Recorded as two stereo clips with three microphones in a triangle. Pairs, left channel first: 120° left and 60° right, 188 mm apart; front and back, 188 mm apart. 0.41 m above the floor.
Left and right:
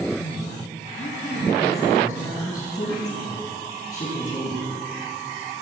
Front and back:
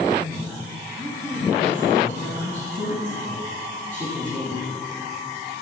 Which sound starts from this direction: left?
A woman speaking, at 0.2 s.